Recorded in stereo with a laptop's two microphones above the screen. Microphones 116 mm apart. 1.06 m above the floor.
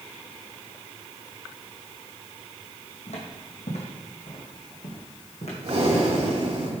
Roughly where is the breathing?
Right.